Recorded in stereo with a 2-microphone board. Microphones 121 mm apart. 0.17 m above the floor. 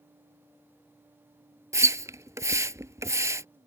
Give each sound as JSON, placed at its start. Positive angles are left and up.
{"t": 1.7, "sound": "a splash", "side_deg": -25}